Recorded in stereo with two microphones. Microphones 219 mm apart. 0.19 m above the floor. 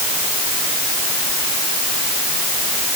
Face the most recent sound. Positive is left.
No sound to turn to.